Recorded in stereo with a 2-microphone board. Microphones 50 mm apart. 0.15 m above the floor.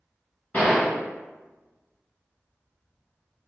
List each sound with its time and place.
0.5 s a gunshot: 35° left (ahead or behind), 1.3 m